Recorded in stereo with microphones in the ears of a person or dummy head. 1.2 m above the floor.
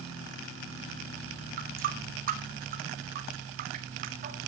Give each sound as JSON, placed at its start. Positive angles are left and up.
{"t": 1.6, "sound": "a running tap", "side_deg": -45, "distance_m": 1.7}